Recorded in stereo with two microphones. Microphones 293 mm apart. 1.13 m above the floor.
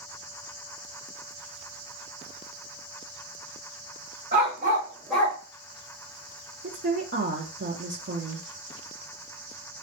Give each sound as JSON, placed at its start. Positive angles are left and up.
{"t": 4.3, "sound": "a dog barking", "side_deg": -35, "distance_m": 1.4}
{"t": 6.6, "sound": "a woman speaking", "side_deg": -40, "distance_m": 0.5}